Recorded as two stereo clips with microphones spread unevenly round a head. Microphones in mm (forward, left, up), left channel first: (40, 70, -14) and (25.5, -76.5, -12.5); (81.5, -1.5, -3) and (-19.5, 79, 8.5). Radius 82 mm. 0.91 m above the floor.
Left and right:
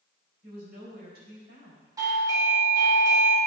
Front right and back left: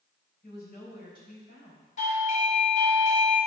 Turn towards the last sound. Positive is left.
turn(degrees=-30)